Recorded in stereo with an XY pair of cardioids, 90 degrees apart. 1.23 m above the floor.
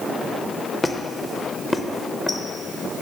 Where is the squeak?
15° left, 0.6 m.